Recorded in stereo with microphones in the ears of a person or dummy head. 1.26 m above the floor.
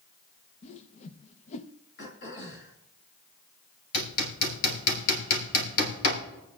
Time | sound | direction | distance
0.6 | a whoosh | 40° left (ahead or behind) | 0.7 m
2.0 | throat clearing | 50° left (ahead or behind) | 3 m
3.9 | hammering | 70° left (ahead or behind) | 3.5 m